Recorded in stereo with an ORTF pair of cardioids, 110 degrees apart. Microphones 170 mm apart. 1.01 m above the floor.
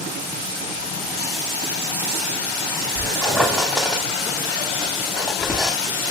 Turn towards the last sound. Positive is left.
turn(degrees=0)